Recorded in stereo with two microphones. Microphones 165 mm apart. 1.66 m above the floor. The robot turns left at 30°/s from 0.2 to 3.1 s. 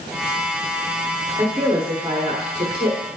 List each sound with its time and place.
1.4 s a woman speaking: 25° right, 1.4 m; by 3.0 s 75° right, 1.4 m